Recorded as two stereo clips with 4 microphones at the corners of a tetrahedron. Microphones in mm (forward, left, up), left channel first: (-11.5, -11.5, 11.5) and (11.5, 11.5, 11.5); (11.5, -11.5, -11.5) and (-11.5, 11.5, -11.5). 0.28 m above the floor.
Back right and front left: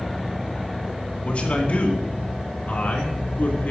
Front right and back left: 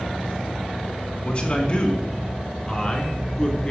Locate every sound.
1.2 s a man speaking: 95° right, 3 m; by 3.7 s 110° right, 4 m